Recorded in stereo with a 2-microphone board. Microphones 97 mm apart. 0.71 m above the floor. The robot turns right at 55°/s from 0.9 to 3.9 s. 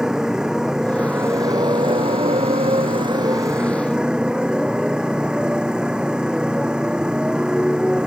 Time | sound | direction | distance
0.0 | a motorcycle | 175° right | ?